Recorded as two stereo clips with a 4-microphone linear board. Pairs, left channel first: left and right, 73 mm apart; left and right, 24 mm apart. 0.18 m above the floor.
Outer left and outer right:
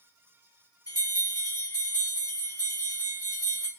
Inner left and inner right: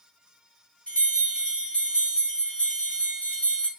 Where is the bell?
50° left (ahead or behind), 1.8 m.